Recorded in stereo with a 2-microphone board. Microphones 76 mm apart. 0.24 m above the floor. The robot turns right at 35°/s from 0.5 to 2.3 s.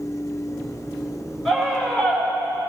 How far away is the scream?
About 4.5 m.